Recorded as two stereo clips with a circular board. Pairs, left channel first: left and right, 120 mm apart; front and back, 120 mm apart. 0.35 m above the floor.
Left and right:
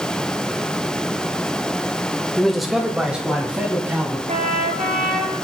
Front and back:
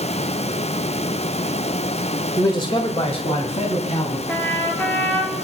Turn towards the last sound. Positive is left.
turn(degrees=-75)